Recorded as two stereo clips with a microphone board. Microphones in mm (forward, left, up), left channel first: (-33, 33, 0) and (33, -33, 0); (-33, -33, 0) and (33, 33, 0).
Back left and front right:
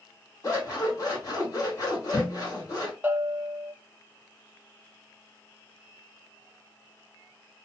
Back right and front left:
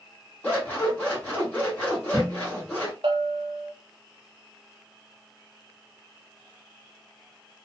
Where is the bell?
25° left, 0.6 m.